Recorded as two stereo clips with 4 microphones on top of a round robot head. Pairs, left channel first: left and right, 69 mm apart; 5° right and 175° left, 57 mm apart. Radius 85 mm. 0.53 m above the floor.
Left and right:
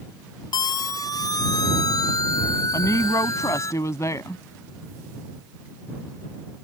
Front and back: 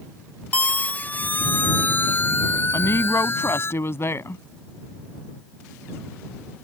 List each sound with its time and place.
0.5 s a siren: 60° left; by 3.7 s 40° left
2.7 s a woman speaking: 40° left